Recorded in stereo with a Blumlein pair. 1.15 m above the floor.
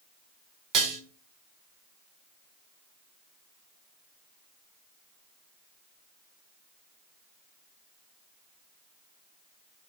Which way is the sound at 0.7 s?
40° right.